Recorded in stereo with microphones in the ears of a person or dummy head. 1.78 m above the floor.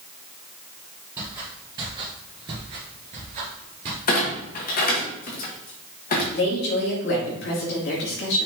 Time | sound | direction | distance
1.2 | footsteps | 20° right (ahead or behind) | 2.5 m
4.1 | a clunk | 45° left (ahead or behind) | 1.5 m
6.3 | a woman speaking | 60° left (ahead or behind) | 2.5 m